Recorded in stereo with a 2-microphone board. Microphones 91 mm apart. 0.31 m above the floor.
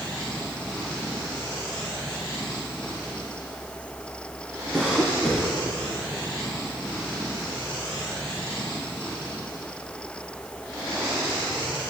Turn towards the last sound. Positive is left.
turn(degrees=-5)  # may be behind; listen again after turning